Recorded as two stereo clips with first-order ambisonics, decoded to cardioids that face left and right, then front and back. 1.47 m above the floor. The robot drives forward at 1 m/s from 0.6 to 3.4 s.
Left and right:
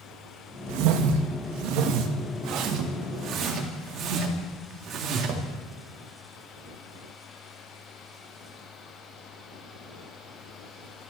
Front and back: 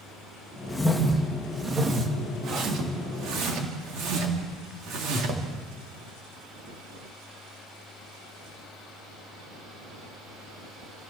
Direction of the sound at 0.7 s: 85° right.